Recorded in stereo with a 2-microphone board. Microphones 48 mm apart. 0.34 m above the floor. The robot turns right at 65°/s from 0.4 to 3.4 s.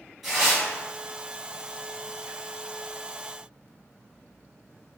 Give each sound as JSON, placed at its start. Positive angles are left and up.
{"t": 0.2, "sound": "tearing paper", "side_deg": 0, "distance_m": 2.0}